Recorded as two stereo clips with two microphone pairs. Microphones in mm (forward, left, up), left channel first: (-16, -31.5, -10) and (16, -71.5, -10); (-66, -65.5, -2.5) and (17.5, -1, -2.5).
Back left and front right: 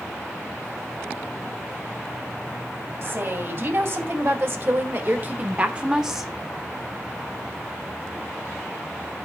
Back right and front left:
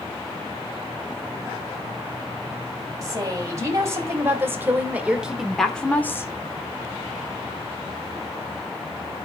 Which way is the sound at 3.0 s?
20° right.